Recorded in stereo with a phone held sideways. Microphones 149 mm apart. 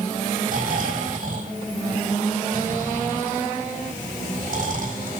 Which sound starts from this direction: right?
Snoring, at 0.5 s.